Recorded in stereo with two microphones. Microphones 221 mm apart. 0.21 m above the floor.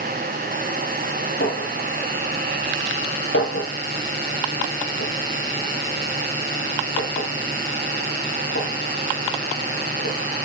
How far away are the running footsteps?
I don't hear running footsteps.